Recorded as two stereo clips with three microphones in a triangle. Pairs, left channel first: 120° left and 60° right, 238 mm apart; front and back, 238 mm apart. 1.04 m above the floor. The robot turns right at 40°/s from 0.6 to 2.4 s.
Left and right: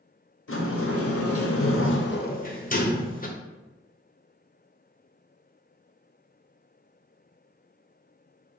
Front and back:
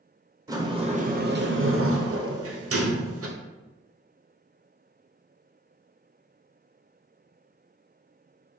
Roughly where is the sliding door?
Left.